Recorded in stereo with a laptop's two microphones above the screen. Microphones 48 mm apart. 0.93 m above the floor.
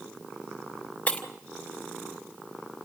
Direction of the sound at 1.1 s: 30° left (ahead or behind).